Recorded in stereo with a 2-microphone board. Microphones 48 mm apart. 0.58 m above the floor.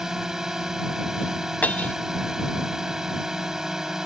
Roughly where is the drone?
Centre.